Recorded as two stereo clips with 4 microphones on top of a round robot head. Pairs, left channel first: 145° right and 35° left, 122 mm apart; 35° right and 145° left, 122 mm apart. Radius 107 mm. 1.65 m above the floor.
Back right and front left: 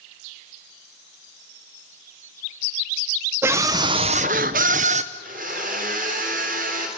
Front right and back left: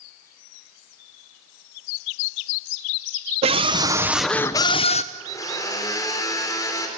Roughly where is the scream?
Left.